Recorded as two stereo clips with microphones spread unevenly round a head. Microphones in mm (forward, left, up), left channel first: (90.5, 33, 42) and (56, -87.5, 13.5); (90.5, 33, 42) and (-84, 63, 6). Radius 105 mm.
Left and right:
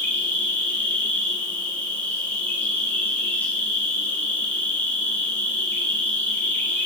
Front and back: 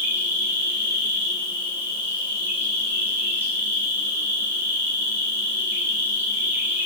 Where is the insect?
165° left, 1.4 m.